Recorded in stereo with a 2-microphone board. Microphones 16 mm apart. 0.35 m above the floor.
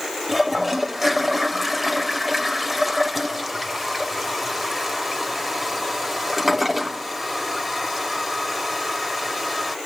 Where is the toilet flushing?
10° right (ahead or behind), 0.7 m.